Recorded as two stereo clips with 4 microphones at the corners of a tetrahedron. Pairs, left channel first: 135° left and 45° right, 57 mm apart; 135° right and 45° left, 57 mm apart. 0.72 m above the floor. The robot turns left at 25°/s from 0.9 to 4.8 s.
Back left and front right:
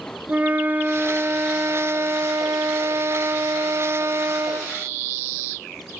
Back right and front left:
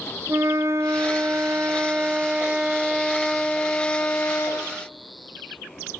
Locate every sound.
0.3 s a flute: 10° left, 0.6 m; by 4.7 s 85° right, 0.6 m